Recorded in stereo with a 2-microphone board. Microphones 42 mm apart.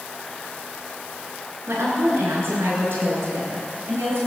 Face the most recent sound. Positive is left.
turn(degrees=-65)  # may be behind; listen again after turning